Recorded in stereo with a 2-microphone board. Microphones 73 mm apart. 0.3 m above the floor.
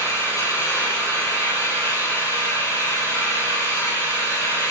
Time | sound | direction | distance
0.0 | an engine running | 40° left (ahead or behind) | 8 m